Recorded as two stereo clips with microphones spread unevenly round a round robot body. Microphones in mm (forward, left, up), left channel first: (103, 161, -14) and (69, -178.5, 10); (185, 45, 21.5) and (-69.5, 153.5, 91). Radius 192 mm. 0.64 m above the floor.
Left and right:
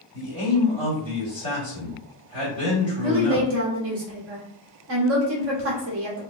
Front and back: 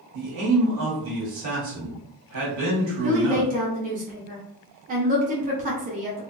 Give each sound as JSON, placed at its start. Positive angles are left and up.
{"t": 0.1, "sound": "a man speaking", "azimuth_deg": 150, "distance_m": 1.7}
{"t": 3.0, "sound": "a woman speaking", "azimuth_deg": -135, "distance_m": 0.7}